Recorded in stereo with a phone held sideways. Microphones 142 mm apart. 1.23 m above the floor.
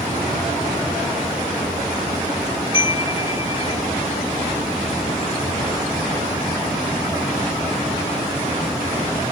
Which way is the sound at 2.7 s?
40° left (ahead or behind).